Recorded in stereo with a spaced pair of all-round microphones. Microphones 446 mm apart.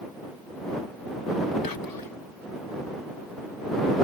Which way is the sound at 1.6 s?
50° left (ahead or behind).